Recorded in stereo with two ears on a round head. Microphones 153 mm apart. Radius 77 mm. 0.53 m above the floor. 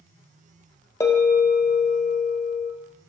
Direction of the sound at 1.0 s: 15° left (ahead or behind).